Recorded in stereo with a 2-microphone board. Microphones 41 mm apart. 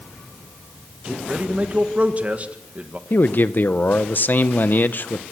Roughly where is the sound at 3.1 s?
Left.